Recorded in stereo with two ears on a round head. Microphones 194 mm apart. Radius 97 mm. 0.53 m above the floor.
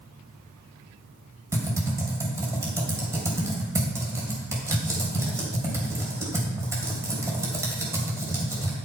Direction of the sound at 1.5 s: 15° right (ahead or behind).